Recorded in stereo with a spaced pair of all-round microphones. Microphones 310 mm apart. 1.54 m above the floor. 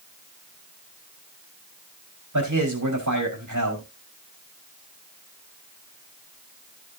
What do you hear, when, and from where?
2.3 s a man speaking: 60° right (ahead or behind), 4 m